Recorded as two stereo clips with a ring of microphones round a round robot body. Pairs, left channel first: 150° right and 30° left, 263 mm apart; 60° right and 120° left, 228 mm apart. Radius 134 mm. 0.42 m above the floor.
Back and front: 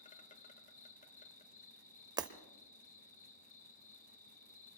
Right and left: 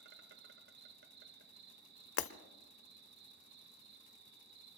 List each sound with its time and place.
0.0 s an insect: 155° left, 1.2 m
2.2 s breaking glass: 45° right, 0.9 m